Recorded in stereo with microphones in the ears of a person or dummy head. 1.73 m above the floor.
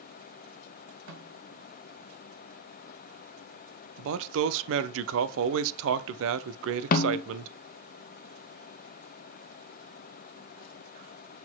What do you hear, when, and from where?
1.1 s a snare drum: 80° right, 3 m
4.0 s a man speaking: 75° right (ahead or behind), 0.7 m
6.9 s a snare drum: 50° left (ahead or behind), 0.7 m